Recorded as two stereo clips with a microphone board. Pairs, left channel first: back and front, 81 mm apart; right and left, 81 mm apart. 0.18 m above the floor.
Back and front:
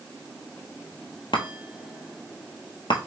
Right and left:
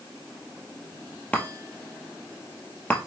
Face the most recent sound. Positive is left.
turn(degrees=-160)